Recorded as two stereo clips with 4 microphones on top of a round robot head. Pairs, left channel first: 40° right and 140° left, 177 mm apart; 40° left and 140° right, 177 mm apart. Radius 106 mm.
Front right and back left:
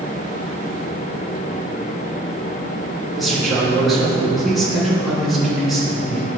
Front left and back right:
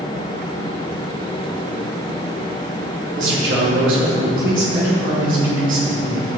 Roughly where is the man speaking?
Behind right.